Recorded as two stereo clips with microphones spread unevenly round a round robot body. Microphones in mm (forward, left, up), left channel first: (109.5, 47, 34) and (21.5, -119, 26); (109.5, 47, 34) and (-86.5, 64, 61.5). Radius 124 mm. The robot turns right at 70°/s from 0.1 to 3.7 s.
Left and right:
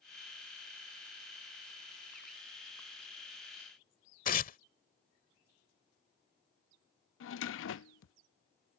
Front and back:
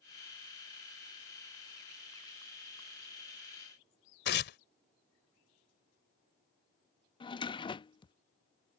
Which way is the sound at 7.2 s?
60° left.